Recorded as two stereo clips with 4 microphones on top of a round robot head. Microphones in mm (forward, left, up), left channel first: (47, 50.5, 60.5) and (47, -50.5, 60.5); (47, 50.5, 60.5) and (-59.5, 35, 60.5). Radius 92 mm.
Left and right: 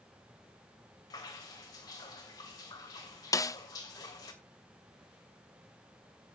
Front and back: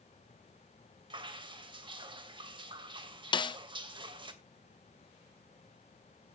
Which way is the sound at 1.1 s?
145° left.